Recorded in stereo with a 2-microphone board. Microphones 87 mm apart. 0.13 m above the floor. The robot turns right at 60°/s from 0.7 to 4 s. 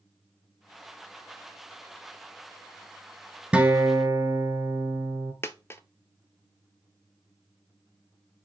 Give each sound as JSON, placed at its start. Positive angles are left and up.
{"t": 3.5, "sound": "a guitar", "side_deg": -15, "distance_m": 1.1}
{"t": 5.4, "sound": "a dropped coin", "side_deg": 30, "distance_m": 0.5}